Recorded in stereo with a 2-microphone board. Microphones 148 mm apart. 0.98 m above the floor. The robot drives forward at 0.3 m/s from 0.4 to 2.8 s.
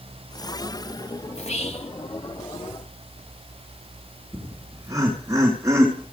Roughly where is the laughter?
Right.